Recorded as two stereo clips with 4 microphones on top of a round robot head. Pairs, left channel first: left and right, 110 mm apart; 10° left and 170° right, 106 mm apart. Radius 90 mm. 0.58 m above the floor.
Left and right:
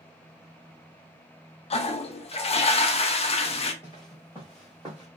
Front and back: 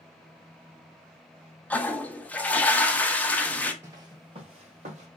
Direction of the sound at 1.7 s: 85° left.